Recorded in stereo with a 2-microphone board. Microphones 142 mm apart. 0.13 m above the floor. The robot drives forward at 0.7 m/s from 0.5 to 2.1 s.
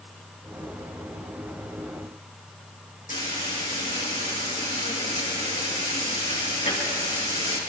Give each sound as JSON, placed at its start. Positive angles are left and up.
{"t": 3.1, "sound": "frying", "side_deg": 75, "distance_m": 4.0}